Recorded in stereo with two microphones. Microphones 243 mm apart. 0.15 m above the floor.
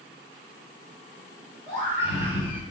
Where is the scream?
25° left (ahead or behind), 1.2 m.